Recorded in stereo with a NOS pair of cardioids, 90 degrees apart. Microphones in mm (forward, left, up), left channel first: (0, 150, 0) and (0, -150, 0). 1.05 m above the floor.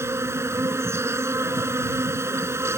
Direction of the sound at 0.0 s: 10° right.